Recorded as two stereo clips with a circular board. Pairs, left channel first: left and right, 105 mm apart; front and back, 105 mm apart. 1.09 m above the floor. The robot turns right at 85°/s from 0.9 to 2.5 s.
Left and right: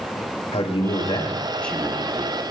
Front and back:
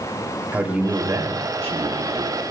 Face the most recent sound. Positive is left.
turn(degrees=-120)